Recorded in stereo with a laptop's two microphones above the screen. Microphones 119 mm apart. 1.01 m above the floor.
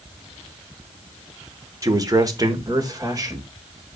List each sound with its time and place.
1.8 s a man speaking: 30° right (ahead or behind), 3 m